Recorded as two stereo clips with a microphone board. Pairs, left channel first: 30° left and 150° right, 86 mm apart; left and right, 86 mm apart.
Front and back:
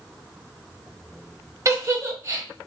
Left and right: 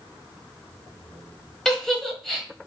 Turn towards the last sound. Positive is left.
turn(degrees=175)